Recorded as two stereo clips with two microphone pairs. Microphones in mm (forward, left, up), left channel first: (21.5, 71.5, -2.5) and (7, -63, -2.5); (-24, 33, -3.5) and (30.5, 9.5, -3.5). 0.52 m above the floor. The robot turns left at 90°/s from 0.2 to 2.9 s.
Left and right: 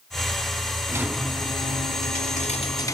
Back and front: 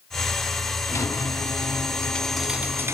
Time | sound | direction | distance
0.9 | a squeak | 160° right | 0.8 m